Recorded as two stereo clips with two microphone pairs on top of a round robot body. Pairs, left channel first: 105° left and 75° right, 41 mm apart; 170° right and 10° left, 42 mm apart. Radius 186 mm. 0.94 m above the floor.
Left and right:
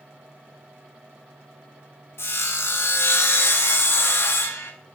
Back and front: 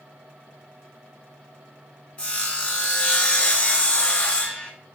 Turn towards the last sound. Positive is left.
turn(degrees=130)